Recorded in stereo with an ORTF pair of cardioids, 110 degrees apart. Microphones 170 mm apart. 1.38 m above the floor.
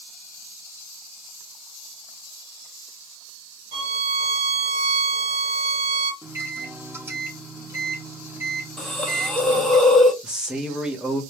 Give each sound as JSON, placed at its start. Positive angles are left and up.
{"t": 3.7, "sound": "a violin", "azimuth_deg": -35, "distance_m": 1.4}
{"t": 6.2, "sound": "a microwave", "azimuth_deg": -15, "distance_m": 0.8}
{"t": 8.8, "sound": "a hiss", "azimuth_deg": 0, "distance_m": 0.6}
{"t": 10.2, "sound": "a man speaking", "azimuth_deg": -5, "distance_m": 0.9}